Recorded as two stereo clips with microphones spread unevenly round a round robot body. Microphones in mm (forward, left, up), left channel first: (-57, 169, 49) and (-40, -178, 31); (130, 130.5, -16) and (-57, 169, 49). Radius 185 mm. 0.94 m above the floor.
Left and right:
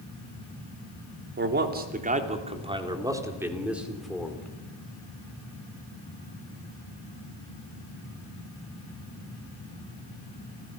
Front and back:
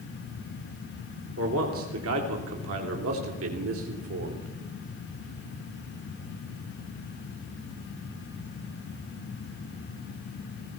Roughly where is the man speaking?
Behind right.